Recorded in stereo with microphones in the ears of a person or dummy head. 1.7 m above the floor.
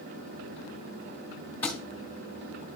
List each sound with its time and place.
1.6 s a thud: 10° left (ahead or behind), 1.9 m